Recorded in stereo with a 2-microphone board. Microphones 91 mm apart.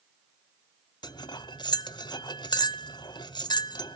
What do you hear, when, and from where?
1.0 s cutlery clinking: 55° left (ahead or behind), 0.9 m